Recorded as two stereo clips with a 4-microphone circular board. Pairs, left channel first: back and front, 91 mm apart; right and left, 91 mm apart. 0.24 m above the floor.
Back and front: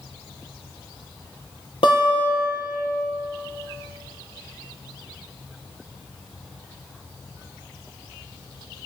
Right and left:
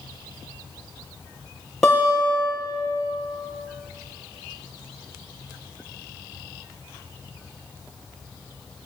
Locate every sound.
1.8 s a guitar: 175° right, 5.5 m